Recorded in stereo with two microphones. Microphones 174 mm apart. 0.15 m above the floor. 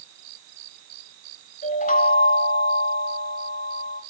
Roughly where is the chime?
Left.